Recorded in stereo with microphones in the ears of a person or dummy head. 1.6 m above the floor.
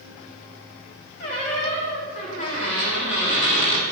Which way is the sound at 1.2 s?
40° left (ahead or behind).